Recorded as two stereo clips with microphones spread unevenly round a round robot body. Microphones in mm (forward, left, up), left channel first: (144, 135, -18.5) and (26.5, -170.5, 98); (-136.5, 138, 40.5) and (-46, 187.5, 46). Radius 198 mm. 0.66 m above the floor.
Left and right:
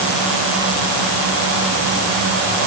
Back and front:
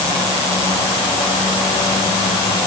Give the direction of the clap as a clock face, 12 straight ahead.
No clap in this recording.